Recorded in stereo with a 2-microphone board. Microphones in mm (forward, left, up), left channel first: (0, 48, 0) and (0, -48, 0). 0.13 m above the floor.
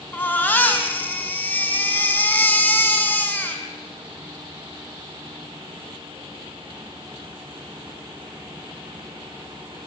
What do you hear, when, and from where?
0.1 s a baby crying: 20° left (ahead or behind), 5 m